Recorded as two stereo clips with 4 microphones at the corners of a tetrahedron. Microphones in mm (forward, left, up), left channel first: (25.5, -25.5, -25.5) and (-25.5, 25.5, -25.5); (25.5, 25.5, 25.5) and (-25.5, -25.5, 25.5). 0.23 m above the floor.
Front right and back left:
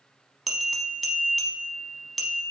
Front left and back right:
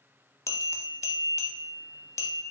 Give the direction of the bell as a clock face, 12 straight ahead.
10 o'clock.